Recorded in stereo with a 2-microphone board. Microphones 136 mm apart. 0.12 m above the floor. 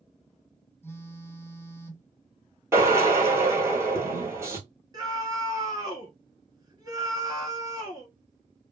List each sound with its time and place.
0.8 s a phone buzzing: 20° left (ahead or behind), 0.7 m
2.7 s a drill: 20° right (ahead or behind), 1.0 m
4.9 s a scream: 30° right (ahead or behind), 1.2 m